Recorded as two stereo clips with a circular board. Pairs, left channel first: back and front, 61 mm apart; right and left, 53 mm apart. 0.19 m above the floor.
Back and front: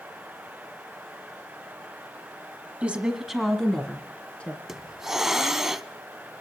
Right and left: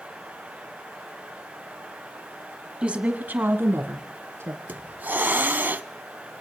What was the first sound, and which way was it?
A woman speaking, 40° left.